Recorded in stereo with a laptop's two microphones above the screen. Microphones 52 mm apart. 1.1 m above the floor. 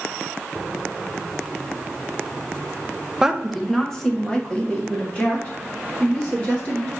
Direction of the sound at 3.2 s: 15° right (ahead or behind).